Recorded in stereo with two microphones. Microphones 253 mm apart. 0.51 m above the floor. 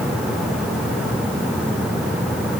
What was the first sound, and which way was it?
Only background noise.